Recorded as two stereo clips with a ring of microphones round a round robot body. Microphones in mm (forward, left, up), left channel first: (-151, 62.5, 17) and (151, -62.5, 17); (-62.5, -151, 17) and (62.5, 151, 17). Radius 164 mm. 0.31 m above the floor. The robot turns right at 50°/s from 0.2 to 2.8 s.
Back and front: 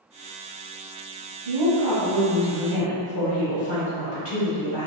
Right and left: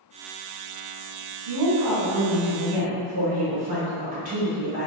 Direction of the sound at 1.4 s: 60° left.